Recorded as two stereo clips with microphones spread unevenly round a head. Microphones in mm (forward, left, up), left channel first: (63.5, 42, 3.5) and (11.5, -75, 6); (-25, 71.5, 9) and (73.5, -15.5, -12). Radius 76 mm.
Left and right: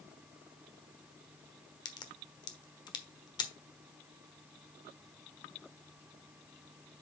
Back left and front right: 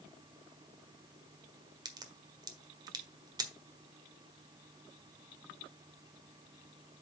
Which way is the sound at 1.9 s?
20° left.